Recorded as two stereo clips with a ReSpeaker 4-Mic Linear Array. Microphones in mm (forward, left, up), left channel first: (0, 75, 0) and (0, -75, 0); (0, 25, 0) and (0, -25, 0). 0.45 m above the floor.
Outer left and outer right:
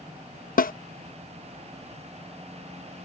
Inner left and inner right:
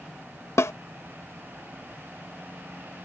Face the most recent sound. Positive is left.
turn(degrees=70)  # may be behind; listen again after turning